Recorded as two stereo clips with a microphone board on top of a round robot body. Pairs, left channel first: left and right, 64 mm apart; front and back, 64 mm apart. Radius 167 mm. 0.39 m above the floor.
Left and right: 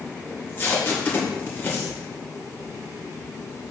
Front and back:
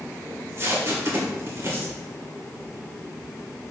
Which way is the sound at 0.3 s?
140° left.